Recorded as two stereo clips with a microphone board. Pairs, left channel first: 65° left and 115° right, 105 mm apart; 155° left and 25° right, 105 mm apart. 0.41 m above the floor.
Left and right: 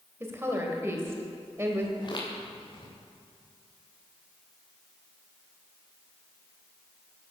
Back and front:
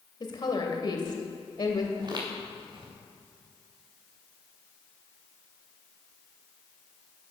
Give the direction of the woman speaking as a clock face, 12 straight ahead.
6 o'clock.